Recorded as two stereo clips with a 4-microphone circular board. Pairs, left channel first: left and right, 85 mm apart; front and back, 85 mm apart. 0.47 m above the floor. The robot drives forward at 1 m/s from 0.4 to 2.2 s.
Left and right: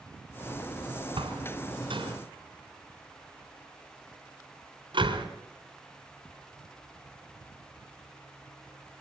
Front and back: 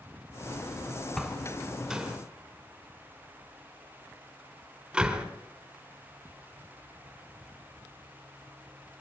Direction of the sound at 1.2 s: 85° right.